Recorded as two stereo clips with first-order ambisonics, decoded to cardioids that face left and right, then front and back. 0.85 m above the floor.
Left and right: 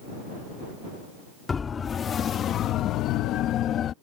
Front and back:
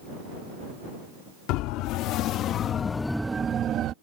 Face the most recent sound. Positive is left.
turn(degrees=140)